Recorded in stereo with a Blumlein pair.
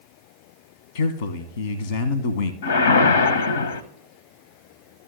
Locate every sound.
0.9 s a man speaking: 65° left, 0.9 m
2.6 s a whoosh: 65° left, 0.8 m